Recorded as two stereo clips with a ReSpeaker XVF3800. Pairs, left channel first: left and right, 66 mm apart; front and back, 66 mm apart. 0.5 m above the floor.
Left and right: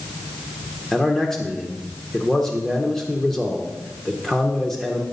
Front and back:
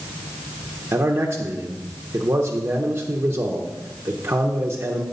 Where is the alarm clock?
No alarm clock in this recording.